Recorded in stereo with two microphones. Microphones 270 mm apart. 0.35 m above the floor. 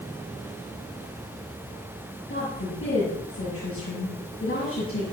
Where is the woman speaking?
55° left (ahead or behind), 8 m.